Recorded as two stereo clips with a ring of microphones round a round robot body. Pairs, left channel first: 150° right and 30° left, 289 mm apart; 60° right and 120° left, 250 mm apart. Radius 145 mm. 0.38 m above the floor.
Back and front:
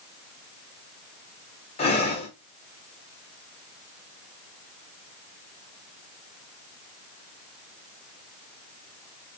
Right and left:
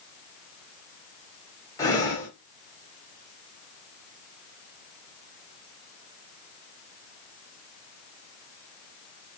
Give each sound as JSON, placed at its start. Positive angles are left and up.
{"t": 1.8, "sound": "breathing", "azimuth_deg": -120, "distance_m": 0.8}